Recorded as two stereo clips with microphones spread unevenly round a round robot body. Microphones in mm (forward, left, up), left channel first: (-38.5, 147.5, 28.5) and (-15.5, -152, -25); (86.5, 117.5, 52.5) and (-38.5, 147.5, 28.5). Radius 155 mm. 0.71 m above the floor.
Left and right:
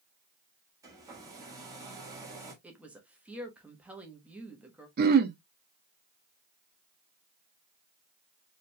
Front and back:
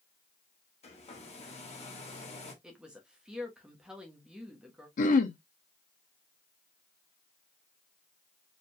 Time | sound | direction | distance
0.8 | a hair dryer | 25° right | 1.4 m
2.6 | a woman speaking | 145° right | 1.0 m
5.0 | throat clearing | 35° right | 0.5 m